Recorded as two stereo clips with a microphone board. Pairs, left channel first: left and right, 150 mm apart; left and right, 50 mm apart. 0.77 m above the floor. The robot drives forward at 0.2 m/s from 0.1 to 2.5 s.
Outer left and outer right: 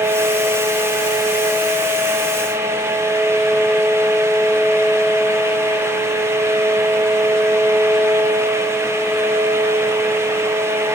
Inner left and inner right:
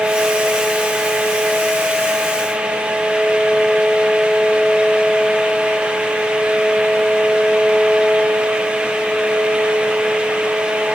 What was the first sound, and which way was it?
Only background noise.